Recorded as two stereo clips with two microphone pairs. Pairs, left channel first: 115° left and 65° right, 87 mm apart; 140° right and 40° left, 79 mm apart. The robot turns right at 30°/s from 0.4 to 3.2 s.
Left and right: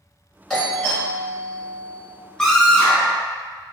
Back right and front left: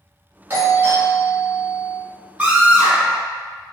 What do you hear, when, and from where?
0.5 s a doorbell: 35° left, 1.7 m; by 2.0 s 80° left, 1.7 m
2.4 s a scream: 55° left, 1.2 m; by 3.2 s 75° left, 1.2 m